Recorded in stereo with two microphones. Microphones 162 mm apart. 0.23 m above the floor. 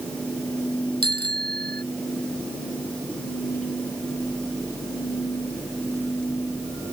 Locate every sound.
1.0 s a bicycle bell: 80° right